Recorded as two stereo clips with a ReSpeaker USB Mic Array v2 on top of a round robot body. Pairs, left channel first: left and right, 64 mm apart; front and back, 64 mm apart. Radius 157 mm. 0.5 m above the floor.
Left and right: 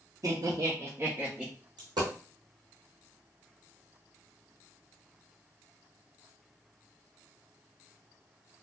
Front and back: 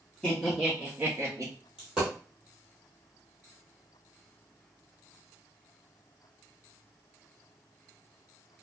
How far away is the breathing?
I don't hear breathing.